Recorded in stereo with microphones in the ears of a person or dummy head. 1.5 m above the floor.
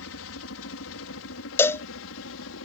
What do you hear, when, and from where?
0.0 s a helicopter: 65° left (ahead or behind)
1.6 s a cowbell: 15° left (ahead or behind)